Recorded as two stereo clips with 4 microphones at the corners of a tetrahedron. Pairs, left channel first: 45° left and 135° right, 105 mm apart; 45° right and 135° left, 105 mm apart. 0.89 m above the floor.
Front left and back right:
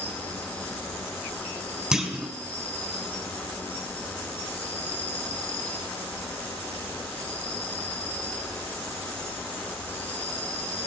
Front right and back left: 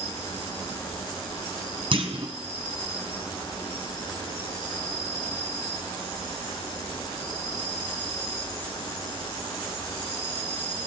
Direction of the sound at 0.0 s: 25° right.